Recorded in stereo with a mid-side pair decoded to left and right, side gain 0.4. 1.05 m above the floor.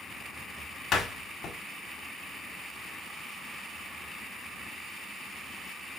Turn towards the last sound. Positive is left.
turn(degrees=65)